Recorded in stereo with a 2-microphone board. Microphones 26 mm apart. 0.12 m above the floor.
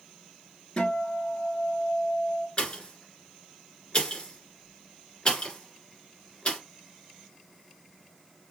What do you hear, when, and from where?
0.8 s a guitar: 40° left (ahead or behind), 1.7 m
2.6 s a pop: 40° left (ahead or behind), 1.9 m